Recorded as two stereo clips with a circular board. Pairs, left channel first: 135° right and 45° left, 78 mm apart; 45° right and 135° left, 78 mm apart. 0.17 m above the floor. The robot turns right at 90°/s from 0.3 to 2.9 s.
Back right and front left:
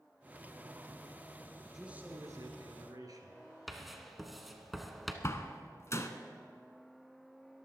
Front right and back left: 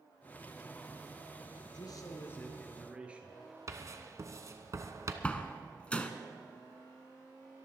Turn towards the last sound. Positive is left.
turn(degrees=-110)